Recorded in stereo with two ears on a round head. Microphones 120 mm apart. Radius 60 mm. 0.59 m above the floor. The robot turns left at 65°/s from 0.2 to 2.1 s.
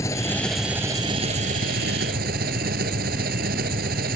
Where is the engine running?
25° left; by 4.2 s 100° right.